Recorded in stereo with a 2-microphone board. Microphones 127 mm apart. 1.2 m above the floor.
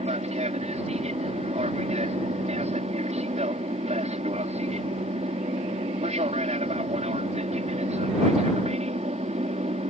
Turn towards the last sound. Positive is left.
turn(degrees=-60)  # may be behind; listen again after turning